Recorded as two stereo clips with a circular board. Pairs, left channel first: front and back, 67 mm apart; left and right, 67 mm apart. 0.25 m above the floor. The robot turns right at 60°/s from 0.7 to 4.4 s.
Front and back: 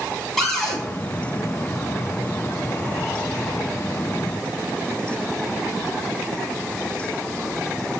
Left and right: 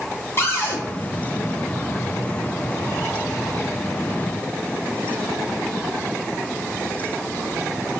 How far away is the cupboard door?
About 1.7 m.